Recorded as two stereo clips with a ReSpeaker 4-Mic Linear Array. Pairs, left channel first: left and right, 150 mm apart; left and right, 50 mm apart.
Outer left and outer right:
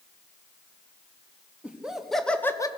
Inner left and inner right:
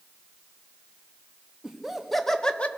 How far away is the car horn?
No car horn in this recording.